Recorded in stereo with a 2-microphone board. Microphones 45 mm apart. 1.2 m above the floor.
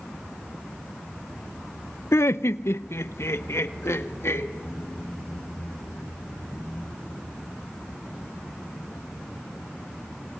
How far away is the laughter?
About 0.5 m.